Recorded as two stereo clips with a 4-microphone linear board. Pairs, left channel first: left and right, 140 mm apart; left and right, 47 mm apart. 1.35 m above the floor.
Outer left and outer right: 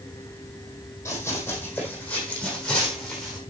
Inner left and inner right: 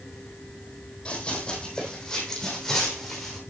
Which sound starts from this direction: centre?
Running footsteps, at 1.1 s.